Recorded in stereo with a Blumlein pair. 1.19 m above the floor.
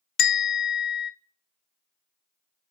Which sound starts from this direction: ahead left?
A bell, at 0.2 s.